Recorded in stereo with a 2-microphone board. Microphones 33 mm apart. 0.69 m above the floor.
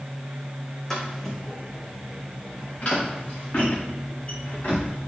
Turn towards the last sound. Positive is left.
turn(degrees=45)  # may be behind; listen again after turning